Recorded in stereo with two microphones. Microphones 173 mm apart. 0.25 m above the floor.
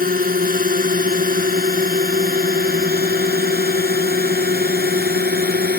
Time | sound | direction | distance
0.0 | a drone | 55° right (ahead or behind) | ?